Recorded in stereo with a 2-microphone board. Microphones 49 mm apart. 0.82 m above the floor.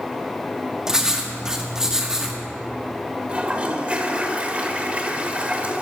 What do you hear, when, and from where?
0.9 s writing: 10° right (ahead or behind), 1.1 m
3.3 s a toilet flushing: 25° right (ahead or behind), 1.0 m